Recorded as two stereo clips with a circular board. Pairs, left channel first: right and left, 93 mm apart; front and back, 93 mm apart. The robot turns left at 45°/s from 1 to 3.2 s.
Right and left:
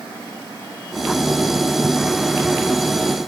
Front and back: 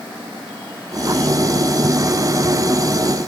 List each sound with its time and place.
Only background noise.